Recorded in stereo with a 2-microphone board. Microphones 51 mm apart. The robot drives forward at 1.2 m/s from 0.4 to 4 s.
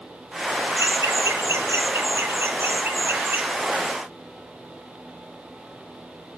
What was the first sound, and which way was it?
Laughter, 75° right (ahead or behind).